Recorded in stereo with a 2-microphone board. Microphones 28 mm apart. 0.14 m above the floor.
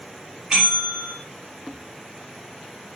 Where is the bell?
30° right (ahead or behind), 3.5 m.